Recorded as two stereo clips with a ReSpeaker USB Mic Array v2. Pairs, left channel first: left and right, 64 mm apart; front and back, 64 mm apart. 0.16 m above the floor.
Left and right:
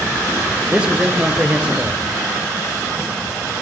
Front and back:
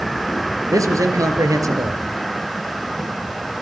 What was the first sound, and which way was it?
A man speaking, 160° right.